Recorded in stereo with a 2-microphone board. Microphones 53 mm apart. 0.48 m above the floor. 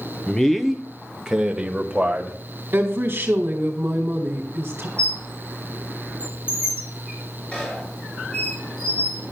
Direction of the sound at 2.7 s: 40° right (ahead or behind).